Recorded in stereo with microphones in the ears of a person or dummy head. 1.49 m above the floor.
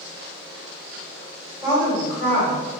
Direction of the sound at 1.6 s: 15° left (ahead or behind).